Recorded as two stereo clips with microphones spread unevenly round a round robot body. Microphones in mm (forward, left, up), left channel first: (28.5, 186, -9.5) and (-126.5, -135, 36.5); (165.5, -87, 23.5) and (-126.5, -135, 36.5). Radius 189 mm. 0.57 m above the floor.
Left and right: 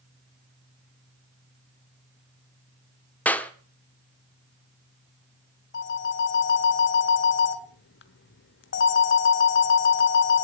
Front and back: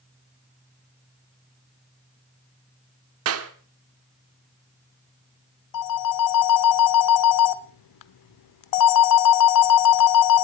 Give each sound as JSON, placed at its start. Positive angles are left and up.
{"t": 3.2, "sound": "a clap", "azimuth_deg": 145, "distance_m": 1.0}
{"t": 5.7, "sound": "a phone ringing", "azimuth_deg": 5, "distance_m": 0.9}